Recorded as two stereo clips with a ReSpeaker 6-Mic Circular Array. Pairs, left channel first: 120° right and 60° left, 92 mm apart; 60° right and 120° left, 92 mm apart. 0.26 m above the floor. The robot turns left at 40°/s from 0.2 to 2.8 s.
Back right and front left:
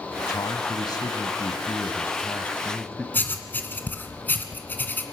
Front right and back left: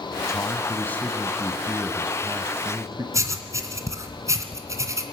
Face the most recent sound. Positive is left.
turn(degrees=170)